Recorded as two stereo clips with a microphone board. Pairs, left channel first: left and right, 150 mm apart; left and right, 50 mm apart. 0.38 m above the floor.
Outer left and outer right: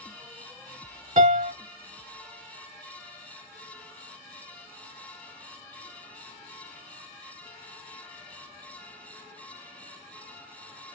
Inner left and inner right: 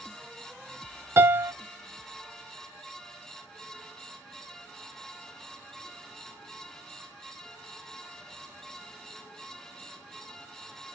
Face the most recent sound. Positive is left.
turn(degrees=-55)  # may be behind; listen again after turning